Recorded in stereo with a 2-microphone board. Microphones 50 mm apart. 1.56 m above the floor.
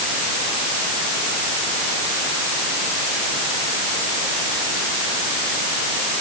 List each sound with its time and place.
Only background noise.